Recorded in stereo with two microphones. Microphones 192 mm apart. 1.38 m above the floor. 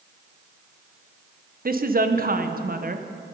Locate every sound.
1.6 s a woman speaking: 50° right (ahead or behind), 0.7 m